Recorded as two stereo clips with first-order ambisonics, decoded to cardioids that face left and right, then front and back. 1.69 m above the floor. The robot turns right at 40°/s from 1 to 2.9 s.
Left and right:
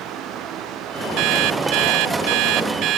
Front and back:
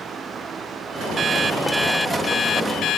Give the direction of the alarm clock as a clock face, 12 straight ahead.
4 o'clock.